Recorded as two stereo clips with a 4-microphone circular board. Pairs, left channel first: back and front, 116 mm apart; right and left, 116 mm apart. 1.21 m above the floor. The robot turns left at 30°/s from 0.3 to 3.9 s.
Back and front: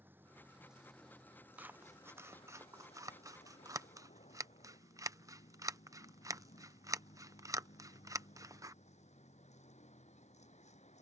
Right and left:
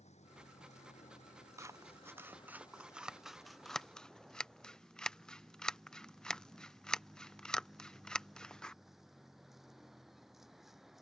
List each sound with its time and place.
0.0 s a vehicle: 75° right; by 11.0 s straight behind
1.6 s scissors: 60° left; by 8.8 s 10° right